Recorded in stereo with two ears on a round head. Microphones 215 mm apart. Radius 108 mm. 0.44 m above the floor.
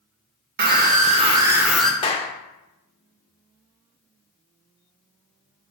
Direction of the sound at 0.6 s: 45° right (ahead or behind).